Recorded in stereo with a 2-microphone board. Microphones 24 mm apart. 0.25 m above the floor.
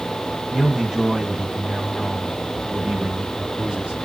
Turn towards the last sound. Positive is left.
turn(degrees=-60)  # may be behind; listen again after turning